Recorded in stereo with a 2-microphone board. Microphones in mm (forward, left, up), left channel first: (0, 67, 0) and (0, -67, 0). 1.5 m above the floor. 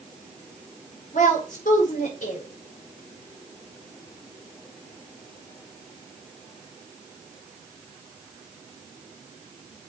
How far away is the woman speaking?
About 5 m.